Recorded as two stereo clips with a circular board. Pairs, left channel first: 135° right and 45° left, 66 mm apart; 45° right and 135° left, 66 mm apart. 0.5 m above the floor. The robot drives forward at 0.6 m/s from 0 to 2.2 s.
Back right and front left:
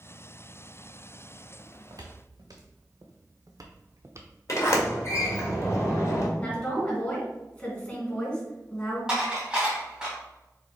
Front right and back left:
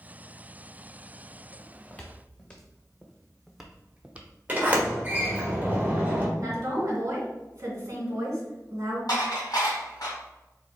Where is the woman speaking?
165° left, 2.5 m.